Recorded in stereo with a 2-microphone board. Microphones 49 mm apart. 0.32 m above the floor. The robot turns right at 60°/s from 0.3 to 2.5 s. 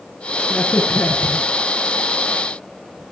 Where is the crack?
25° left (ahead or behind), 5 m; by 3.1 s 35° left (ahead or behind), 5 m.